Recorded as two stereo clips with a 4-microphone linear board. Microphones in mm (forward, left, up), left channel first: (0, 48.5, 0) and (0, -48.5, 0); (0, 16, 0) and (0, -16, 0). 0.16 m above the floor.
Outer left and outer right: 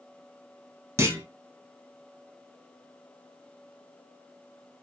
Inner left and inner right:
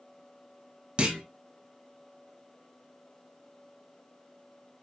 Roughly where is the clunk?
Right.